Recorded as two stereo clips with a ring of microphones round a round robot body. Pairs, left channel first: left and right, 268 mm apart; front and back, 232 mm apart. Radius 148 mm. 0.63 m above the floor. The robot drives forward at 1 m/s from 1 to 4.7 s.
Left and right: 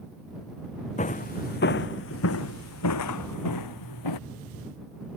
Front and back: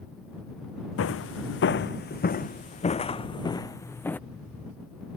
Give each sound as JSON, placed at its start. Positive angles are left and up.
{"t": 1.0, "sound": "footsteps", "azimuth_deg": 25}